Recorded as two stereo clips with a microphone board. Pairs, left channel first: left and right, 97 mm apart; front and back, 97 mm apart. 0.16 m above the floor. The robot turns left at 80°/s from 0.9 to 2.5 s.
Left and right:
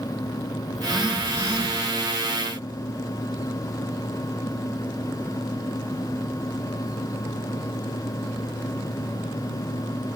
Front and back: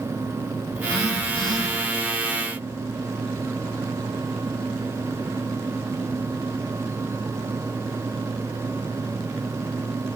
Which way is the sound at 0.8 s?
5° left.